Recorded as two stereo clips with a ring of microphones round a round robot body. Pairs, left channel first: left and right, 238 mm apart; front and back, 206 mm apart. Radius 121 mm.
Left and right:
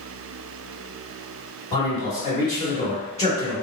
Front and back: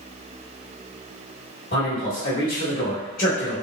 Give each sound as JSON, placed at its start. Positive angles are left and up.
{"t": 1.7, "sound": "a man speaking", "azimuth_deg": 30, "distance_m": 2.0}